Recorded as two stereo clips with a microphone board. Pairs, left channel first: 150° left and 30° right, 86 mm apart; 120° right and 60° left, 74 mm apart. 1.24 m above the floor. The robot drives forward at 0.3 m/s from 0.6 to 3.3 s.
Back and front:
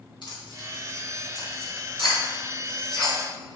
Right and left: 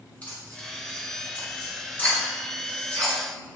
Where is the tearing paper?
175° left, 3.5 m.